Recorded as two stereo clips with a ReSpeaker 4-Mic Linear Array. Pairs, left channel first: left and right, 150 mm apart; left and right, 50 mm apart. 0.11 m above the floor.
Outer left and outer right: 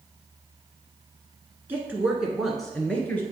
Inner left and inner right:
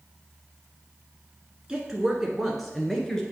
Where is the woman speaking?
15° right (ahead or behind), 1.4 m; by 3.2 s 10° left (ahead or behind), 1.6 m.